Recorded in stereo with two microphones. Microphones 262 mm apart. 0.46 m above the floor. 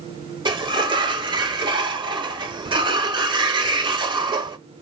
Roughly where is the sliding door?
Centre.